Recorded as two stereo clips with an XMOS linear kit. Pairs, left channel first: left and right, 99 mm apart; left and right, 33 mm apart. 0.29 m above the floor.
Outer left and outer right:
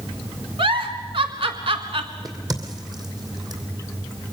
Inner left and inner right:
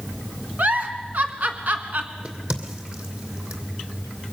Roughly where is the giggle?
Right.